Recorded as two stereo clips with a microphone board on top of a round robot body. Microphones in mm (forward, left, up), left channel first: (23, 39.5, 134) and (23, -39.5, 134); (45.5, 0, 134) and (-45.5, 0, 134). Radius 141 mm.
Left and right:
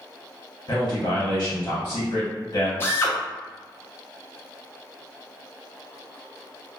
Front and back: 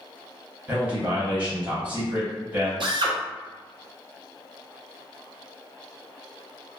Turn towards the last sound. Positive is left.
turn(degrees=150)